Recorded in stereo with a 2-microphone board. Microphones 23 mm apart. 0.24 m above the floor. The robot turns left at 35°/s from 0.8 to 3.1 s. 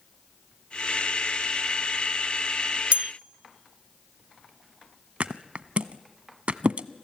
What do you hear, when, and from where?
2.9 s a bell: 55° right (ahead or behind), 0.7 m; by 3.1 s 60° right (ahead or behind), 0.7 m
5.2 s a thud: 60° right (ahead or behind), 0.8 m